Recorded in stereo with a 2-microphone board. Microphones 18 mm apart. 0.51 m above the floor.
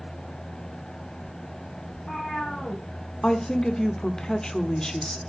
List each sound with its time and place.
1.9 s a cat meowing: 70° left (ahead or behind), 5 m
3.2 s a woman speaking: 40° left (ahead or behind), 1.3 m